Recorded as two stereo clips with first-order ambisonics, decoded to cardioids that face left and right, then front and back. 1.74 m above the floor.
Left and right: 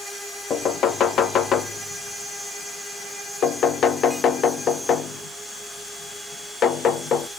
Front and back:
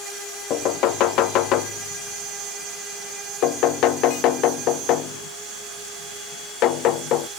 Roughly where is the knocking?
Ahead left.